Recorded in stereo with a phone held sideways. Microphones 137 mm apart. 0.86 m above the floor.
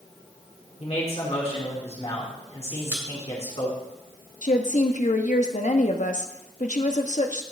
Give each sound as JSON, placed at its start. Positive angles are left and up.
{"t": 0.8, "sound": "a man speaking", "side_deg": 50, "distance_m": 2.5}
{"t": 2.8, "sound": "a pop", "side_deg": -20, "distance_m": 2.0}
{"t": 4.4, "sound": "a woman speaking", "side_deg": 65, "distance_m": 0.9}